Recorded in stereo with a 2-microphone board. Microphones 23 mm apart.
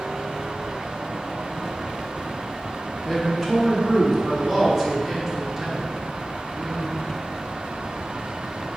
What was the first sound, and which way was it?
A man speaking, 15° left (ahead or behind).